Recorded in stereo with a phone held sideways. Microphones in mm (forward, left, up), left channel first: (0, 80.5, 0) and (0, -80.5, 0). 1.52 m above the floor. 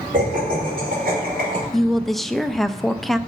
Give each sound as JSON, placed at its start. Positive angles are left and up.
{"t": 0.1, "sound": "laughter", "side_deg": -60, "distance_m": 5.5}
{"t": 1.7, "sound": "a woman speaking", "side_deg": 0, "distance_m": 0.5}